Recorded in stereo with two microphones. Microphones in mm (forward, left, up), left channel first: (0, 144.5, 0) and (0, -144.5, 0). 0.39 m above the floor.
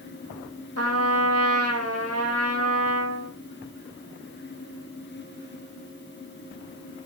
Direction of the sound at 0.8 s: 55° right (ahead or behind).